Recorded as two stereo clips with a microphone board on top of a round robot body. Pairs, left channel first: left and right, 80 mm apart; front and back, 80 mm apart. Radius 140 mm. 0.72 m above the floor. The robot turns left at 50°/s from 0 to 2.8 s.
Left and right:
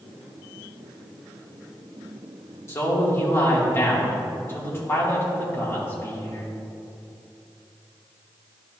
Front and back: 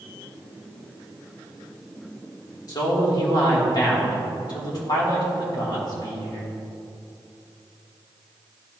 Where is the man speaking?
40° left, 2.5 m; by 6.5 s 30° left, 2.5 m.